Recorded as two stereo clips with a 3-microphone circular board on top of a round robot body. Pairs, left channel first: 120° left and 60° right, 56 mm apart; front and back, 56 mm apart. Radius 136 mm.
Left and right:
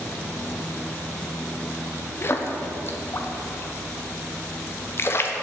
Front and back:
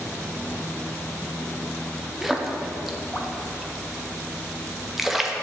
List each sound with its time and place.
2.2 s a splash: 95° left, 0.9 m